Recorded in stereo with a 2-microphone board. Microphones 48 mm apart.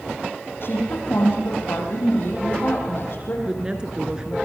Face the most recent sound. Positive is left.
turn(degrees=-15)  # may be behind; listen again after turning